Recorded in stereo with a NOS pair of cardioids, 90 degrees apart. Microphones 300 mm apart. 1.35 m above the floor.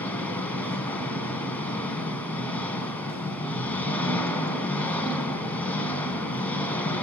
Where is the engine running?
5° left, 3.5 m.